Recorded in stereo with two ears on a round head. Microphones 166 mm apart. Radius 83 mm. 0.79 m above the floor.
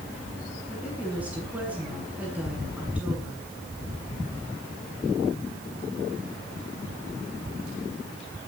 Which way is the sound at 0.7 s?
10° right (ahead or behind).